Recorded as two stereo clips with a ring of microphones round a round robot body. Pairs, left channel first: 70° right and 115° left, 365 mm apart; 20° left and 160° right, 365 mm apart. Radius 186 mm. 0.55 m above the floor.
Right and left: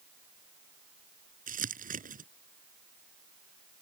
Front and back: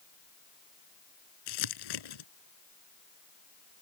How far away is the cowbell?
No cowbell in this recording.